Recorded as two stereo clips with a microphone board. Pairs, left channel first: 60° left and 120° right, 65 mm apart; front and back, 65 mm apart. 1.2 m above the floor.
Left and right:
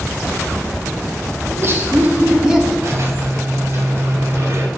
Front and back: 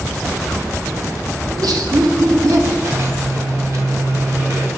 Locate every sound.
1.5 s laughter: 165° right, 1.4 m; by 2.7 s 155° left, 1.6 m
2.8 s a squeak: 160° right, 1.7 m